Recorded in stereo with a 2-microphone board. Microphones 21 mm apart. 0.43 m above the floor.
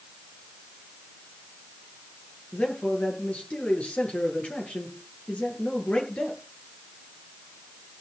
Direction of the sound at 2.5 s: 80° left.